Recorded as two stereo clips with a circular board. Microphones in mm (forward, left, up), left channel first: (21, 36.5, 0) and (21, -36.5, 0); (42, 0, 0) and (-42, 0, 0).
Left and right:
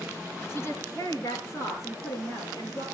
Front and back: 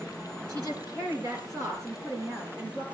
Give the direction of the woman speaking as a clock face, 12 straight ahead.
7 o'clock.